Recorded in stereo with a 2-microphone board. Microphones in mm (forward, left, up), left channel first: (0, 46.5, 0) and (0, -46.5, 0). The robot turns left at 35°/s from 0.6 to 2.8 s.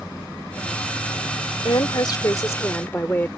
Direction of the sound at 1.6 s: 60° left.